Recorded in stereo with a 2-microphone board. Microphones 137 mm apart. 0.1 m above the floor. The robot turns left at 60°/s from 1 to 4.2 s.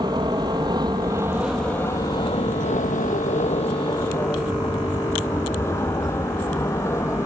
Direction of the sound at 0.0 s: 30° right (ahead or behind).